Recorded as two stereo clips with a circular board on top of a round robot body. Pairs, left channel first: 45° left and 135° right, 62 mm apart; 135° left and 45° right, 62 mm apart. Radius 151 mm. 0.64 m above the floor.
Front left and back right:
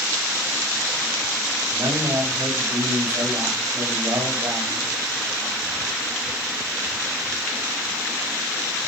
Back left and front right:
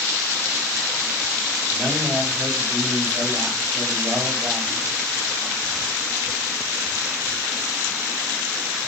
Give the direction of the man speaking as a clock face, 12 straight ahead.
4 o'clock.